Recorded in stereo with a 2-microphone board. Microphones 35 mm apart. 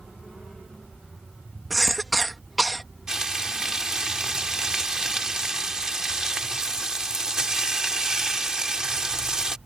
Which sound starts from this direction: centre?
A cough, at 1.7 s.